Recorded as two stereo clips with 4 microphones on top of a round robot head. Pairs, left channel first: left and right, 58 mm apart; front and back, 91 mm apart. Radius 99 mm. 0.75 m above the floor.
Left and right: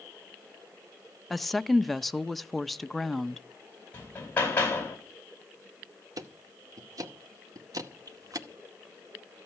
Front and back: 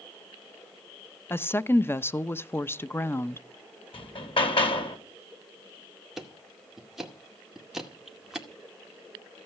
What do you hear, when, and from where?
1.3 s a woman speaking: 5° left, 0.8 m
3.9 s hammering: 25° left, 5.5 m
6.2 s ticking: 95° right, 2.0 m